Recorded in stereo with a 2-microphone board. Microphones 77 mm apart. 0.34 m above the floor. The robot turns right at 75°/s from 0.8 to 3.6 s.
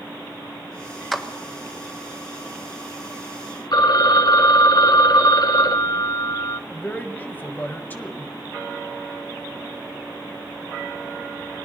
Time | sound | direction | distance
1.1 | a clap | centre (ahead or behind) | 1.4 m
3.7 | a phone ringing | 55° left (ahead or behind) | 0.8 m
6.7 | a man speaking | 25° left (ahead or behind) | 1.6 m